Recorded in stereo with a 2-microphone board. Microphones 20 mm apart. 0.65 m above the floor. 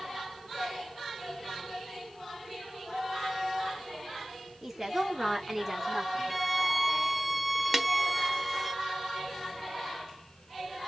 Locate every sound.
4.6 s a woman speaking: 20° right (ahead or behind), 2.0 m; by 6.4 s 10° right (ahead or behind), 1.2 m
6.3 s a violin: 5° left (ahead or behind), 0.5 m
7.7 s a snare drum: 20° right (ahead or behind), 0.7 m